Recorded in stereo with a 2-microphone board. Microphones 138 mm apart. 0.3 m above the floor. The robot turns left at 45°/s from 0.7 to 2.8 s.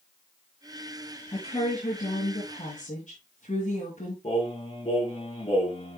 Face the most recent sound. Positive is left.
turn(degrees=45)  # may be behind; listen again after turning